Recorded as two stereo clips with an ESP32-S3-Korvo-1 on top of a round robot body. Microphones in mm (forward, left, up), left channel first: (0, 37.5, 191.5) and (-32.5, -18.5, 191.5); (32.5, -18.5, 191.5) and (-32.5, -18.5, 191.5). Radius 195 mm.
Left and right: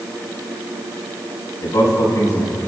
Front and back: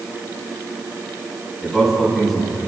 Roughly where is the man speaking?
Left.